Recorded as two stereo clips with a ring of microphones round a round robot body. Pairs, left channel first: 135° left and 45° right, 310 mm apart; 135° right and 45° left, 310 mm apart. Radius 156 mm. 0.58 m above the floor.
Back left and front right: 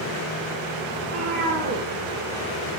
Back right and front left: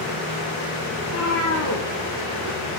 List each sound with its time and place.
1.0 s a cat meowing: 90° right, 8.5 m